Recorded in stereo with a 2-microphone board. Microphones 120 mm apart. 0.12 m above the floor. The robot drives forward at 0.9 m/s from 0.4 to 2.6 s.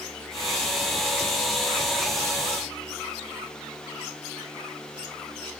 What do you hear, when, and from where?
Only background noise.